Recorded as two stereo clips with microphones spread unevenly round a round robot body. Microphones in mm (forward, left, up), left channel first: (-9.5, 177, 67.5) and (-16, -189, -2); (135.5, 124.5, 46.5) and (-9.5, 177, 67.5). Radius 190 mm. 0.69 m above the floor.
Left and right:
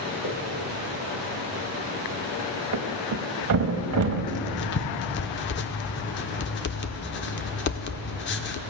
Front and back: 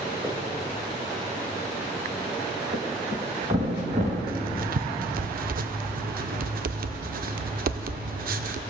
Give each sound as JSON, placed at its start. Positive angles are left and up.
{"t": 0.2, "sound": "footsteps", "azimuth_deg": 90, "distance_m": 3.5}
{"t": 2.7, "sound": "a thud", "azimuth_deg": -145, "distance_m": 0.8}
{"t": 4.3, "sound": "writing", "azimuth_deg": 145, "distance_m": 0.5}